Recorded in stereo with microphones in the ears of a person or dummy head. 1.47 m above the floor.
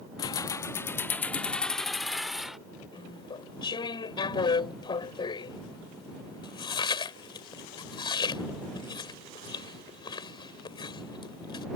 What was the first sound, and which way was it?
Keys jangling, 20° left (ahead or behind).